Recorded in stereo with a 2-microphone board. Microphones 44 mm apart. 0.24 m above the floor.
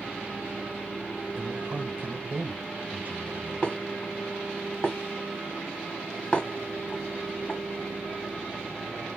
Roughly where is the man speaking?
Right.